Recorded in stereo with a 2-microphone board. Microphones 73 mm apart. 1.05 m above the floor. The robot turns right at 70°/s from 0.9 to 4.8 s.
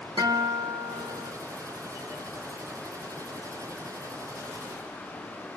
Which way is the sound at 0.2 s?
105° right.